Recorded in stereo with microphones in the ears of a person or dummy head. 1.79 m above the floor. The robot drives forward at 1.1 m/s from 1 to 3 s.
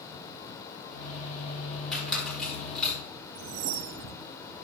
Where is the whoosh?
60° right (ahead or behind), 0.7 m.